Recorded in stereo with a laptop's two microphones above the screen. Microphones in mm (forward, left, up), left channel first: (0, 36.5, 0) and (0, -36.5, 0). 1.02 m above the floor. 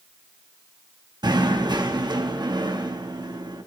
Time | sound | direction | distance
1.2 | knocking | 80° right | 1.3 m